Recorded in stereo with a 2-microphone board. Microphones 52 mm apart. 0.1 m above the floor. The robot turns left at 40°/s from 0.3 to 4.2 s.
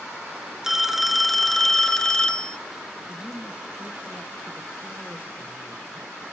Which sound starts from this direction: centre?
A phone ringing, at 0.6 s.